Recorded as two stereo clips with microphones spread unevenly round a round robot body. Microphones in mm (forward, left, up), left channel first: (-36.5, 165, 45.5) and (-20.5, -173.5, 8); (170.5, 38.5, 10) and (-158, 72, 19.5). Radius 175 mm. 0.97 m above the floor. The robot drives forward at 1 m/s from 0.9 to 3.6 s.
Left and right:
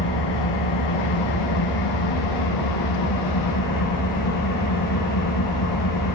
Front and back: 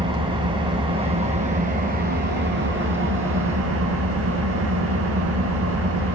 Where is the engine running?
100° left, 5 m; by 6.1 s 125° left, 6 m.